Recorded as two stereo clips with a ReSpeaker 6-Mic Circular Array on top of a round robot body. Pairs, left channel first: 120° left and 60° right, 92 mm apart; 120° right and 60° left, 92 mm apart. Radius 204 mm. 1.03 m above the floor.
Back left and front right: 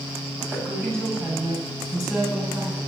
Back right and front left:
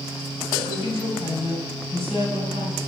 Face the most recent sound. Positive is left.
turn(degrees=-130)